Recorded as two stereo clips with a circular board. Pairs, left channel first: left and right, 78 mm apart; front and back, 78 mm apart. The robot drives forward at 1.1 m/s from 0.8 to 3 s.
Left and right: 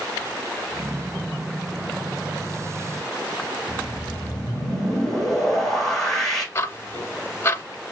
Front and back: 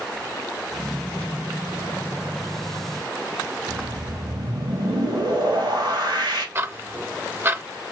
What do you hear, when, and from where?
3.7 s a whoosh: 175° left, 2.5 m
6.5 s ticking: 130° left, 0.5 m